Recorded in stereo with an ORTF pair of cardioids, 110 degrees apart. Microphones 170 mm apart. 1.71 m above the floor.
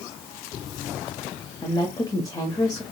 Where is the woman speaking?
20° left, 0.9 m.